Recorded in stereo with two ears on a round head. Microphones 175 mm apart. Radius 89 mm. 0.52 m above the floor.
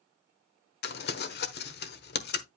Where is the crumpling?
55° left (ahead or behind), 1.1 m.